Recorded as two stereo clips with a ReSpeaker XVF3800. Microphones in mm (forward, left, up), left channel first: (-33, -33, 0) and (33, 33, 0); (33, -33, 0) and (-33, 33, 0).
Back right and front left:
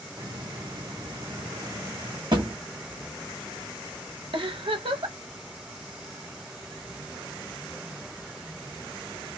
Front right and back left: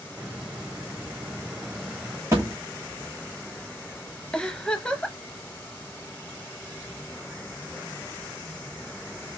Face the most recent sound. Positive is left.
turn(degrees=35)